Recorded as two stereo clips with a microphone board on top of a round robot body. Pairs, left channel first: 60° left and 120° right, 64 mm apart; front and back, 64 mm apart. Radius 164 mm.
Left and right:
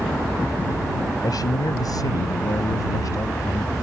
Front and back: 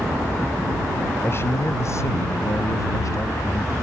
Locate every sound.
1.2 s a man speaking: 50° left; by 3.7 s 30° left